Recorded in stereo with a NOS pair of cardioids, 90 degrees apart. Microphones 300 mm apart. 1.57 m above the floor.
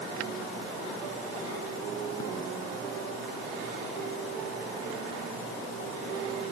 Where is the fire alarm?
No fire alarm in this recording.